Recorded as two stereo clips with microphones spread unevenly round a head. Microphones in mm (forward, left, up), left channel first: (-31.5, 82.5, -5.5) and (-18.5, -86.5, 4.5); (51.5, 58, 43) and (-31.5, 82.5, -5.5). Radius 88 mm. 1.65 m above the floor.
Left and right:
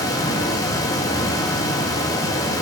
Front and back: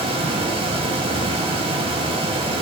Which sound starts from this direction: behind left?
A fan, at 0.0 s.